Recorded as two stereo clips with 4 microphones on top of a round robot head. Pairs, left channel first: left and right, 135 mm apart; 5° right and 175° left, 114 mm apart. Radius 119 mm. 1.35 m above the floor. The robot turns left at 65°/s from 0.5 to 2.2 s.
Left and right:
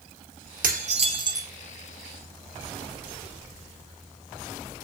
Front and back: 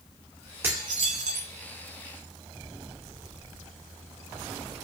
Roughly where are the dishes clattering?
Right.